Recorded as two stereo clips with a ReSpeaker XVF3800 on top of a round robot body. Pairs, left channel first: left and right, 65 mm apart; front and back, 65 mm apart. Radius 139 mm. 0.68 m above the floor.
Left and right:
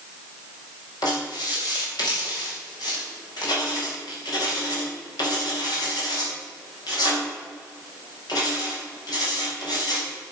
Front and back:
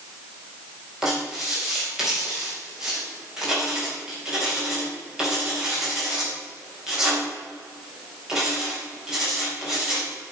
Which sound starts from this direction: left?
Writing, at 1.0 s.